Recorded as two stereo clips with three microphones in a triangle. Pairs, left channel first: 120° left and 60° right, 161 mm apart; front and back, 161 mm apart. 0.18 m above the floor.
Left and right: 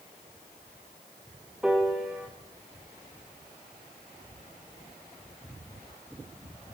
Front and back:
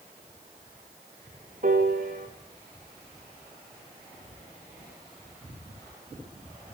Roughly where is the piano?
Behind right.